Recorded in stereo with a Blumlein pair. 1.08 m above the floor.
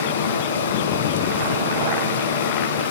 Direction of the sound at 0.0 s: 70° left.